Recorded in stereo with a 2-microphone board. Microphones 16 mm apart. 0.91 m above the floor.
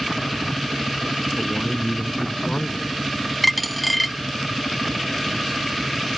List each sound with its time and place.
1.4 s a man speaking: 45° left (ahead or behind)
3.4 s a dropped coin: centre (ahead or behind)